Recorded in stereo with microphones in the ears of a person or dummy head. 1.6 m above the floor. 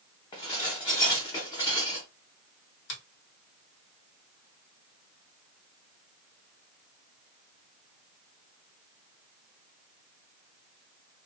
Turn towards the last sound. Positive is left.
turn(degrees=65)  # may be behind; listen again after turning